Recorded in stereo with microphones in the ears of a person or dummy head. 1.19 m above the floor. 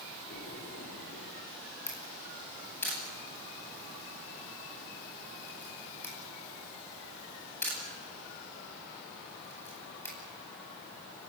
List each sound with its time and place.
0.3 s a splash: 45° left (ahead or behind), 8 m
1.9 s a camera shutter: 15° left (ahead or behind), 10 m